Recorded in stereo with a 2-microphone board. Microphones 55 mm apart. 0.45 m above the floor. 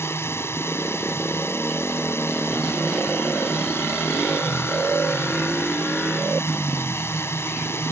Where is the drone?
55° left (ahead or behind).